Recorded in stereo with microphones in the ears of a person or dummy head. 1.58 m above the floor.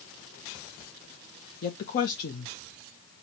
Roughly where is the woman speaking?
Left.